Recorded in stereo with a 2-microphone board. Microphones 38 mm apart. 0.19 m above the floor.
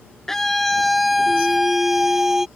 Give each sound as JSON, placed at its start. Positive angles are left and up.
{"t": 0.3, "sound": "a scream", "side_deg": 15}